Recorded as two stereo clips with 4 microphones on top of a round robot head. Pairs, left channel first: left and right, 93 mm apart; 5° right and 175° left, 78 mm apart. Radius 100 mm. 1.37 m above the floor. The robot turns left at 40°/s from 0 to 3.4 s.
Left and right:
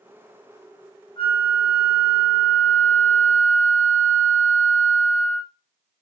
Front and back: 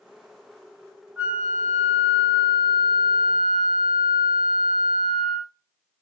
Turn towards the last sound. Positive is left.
turn(degrees=10)